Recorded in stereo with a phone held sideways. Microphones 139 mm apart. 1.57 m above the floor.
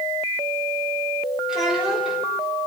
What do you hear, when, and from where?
1.5 s a child speaking: 5° right (ahead or behind), 4 m